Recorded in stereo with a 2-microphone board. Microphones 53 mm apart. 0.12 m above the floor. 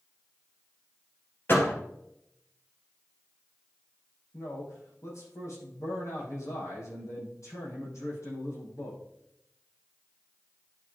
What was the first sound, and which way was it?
A door slam, 45° left (ahead or behind).